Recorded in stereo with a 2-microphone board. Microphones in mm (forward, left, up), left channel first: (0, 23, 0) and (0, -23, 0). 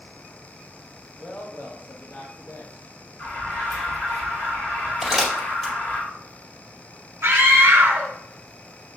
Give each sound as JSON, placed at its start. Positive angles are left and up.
{"t": 1.2, "sound": "a woman speaking", "side_deg": 35, "distance_m": 1.3}
{"t": 3.2, "sound": "an alarm", "side_deg": 55, "distance_m": 1.9}
{"t": 5.0, "sound": "crumpling", "side_deg": 0, "distance_m": 1.9}
{"t": 7.2, "sound": "a scream", "side_deg": -60, "distance_m": 1.3}